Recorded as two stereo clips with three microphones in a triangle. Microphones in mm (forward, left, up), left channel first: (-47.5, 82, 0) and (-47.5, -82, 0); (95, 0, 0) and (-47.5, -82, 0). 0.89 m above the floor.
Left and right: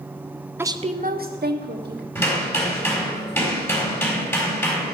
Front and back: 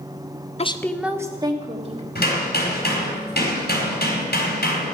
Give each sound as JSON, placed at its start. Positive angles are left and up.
{"t": 0.6, "sound": "a woman speaking", "azimuth_deg": -15, "distance_m": 0.7}
{"t": 2.1, "sound": "hammering", "azimuth_deg": 15, "distance_m": 4.0}